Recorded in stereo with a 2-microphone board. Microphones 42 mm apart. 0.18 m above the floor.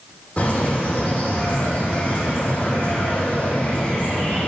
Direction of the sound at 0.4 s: 35° left (ahead or behind).